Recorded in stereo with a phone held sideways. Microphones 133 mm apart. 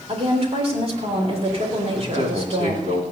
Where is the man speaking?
60° right (ahead or behind), 3.5 m.